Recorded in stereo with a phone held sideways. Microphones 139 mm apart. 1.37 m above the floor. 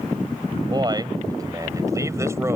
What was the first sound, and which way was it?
A man speaking, 30° right (ahead or behind).